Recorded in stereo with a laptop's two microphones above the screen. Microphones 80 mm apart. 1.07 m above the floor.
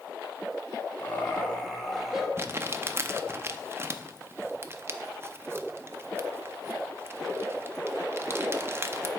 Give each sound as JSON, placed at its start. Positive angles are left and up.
{"t": 1.0, "sound": "laughter", "side_deg": 20, "distance_m": 1.7}
{"t": 2.4, "sound": "crumpling", "side_deg": -30, "distance_m": 0.5}